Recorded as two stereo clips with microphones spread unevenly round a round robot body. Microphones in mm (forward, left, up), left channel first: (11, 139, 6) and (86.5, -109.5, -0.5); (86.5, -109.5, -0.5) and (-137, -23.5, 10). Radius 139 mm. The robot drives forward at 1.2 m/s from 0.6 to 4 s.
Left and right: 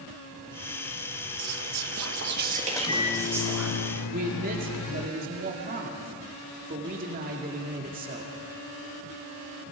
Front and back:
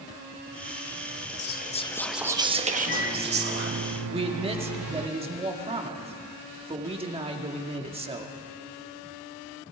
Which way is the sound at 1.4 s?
55° right.